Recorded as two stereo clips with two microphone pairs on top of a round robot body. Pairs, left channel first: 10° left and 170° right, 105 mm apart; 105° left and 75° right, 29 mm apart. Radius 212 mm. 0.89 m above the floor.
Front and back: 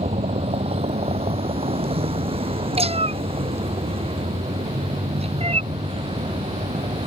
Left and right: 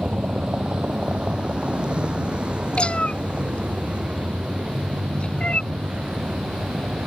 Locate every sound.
0.0 s a vehicle: 135° right; by 7.1 s 130° right
2.8 s a cat meowing: 160° left